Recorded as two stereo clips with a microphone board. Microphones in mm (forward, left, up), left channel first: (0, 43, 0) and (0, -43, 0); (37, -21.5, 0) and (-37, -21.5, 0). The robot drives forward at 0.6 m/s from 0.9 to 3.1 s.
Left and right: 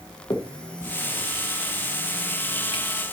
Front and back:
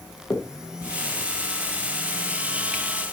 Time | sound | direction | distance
0.3 | a finger snap | 50° left | 1.4 m